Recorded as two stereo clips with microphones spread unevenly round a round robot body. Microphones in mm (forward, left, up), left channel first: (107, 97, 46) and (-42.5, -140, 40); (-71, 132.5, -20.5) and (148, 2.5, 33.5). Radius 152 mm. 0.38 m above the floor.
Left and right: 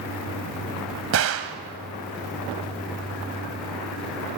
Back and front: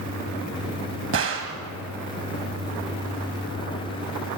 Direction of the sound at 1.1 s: 85° right.